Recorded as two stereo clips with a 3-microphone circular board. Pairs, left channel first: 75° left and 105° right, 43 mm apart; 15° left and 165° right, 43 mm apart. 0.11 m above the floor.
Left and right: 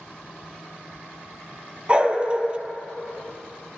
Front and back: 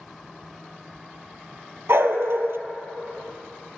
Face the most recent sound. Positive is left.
turn(degrees=-170)